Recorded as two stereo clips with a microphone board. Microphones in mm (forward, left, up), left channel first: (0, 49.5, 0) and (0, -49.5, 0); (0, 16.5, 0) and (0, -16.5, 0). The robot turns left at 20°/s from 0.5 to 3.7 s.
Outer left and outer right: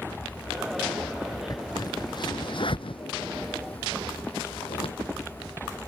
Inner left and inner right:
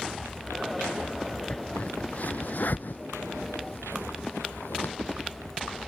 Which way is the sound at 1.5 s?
40° left (ahead or behind).